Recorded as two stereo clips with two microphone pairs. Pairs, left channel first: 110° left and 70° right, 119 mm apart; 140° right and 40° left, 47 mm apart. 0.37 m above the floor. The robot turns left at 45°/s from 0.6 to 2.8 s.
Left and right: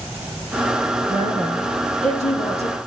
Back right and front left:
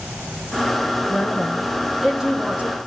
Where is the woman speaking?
160° left, 4 m; by 2.8 s 85° left, 4 m.